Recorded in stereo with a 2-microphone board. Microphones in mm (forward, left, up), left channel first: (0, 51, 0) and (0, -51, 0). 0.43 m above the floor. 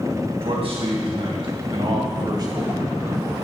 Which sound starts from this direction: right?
A man speaking, at 0.4 s.